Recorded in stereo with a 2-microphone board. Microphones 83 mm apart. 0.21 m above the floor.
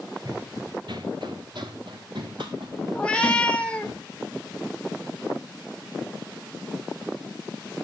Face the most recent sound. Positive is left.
turn(degrees=15)  # may be behind; listen again after turning